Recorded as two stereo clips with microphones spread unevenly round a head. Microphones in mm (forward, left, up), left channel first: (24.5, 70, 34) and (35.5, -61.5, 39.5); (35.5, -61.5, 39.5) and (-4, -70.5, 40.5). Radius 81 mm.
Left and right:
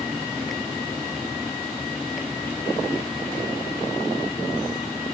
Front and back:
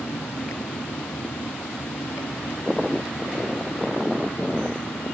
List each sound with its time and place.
0.0 s a fan: 5° left